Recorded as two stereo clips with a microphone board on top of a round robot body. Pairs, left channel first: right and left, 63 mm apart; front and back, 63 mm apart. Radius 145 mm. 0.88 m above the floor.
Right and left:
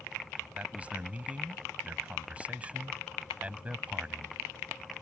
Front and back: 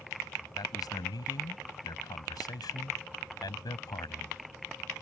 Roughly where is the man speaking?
Ahead.